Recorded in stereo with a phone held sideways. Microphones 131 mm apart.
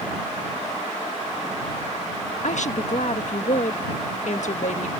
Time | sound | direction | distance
2.4 | a woman speaking | 65° left (ahead or behind) | ?